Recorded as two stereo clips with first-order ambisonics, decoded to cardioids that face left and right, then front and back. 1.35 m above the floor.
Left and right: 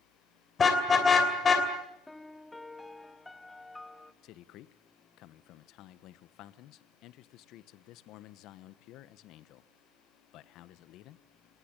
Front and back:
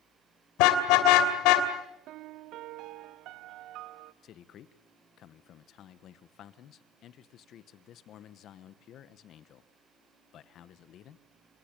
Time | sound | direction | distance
0.6 | a car horn | 20° left | 2.5 m
2.1 | a piano | 175° left | 0.6 m
4.2 | a man speaking | 50° left | 1.1 m